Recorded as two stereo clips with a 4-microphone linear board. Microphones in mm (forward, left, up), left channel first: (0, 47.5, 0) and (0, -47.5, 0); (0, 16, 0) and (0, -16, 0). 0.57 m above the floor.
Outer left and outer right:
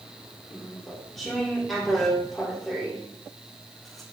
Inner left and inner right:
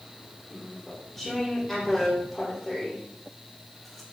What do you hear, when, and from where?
0.5 s chewing: centre (ahead or behind), 1.2 m